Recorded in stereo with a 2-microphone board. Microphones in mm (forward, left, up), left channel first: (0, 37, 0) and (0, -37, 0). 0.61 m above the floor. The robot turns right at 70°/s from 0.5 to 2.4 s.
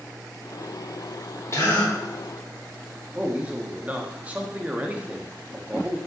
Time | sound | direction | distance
1.5 | a gasp | 40° left (ahead or behind) | 1.1 m
3.1 | a man speaking | 20° right (ahead or behind) | 0.5 m